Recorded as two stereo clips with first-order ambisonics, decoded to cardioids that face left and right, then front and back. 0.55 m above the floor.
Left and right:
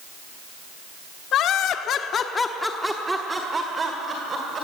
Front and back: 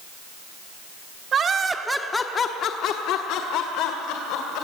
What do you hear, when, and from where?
1.3 s laughter: 125° left, 1.1 m; by 4.7 s 25° right, 2.5 m